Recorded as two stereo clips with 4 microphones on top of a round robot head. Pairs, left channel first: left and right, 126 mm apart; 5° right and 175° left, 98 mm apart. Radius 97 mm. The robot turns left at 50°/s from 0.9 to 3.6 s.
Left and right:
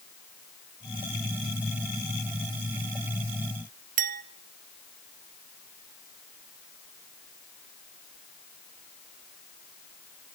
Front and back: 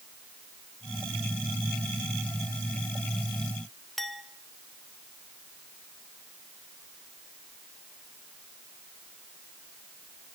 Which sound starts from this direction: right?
A clink, at 4.0 s.